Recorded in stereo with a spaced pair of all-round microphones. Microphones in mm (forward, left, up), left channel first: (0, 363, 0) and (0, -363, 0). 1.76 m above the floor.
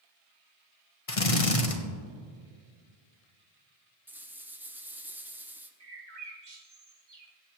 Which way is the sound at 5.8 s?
75° right (ahead or behind).